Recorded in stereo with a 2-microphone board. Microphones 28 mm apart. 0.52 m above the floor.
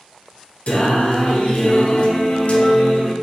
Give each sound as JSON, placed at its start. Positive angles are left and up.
{"t": 0.7, "sound": "singing", "side_deg": 70, "distance_m": 0.9}